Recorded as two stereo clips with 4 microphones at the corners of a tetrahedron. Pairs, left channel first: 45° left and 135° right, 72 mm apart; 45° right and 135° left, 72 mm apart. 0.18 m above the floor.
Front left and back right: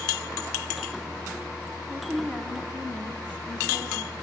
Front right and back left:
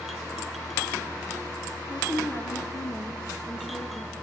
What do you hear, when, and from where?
1.9 s a woman speaking: 15° right, 1.9 m